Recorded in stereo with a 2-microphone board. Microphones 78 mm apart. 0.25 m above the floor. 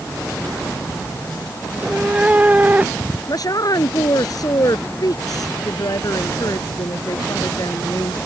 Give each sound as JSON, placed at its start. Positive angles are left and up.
{"t": 1.7, "sound": "a cat meowing", "side_deg": -15}
{"t": 3.3, "sound": "a woman speaking", "side_deg": 55}